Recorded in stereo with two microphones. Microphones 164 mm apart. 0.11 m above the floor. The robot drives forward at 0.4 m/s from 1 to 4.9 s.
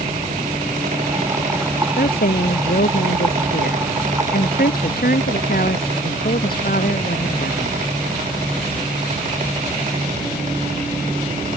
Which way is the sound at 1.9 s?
75° left (ahead or behind).